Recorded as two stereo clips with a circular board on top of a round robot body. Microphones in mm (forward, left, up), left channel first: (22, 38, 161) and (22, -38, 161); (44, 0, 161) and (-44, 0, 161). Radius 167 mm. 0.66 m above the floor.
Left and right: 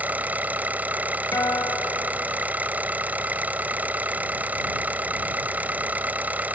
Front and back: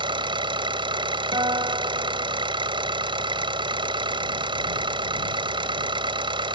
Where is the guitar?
145° left.